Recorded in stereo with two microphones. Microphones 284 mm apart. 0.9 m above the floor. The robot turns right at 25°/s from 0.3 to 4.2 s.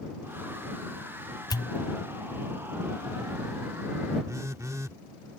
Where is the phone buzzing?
10° right (ahead or behind).